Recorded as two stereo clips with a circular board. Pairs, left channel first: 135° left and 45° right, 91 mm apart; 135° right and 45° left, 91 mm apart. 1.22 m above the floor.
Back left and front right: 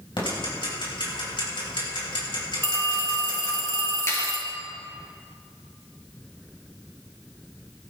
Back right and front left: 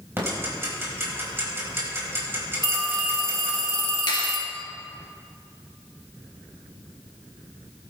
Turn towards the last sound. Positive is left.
turn(degrees=-165)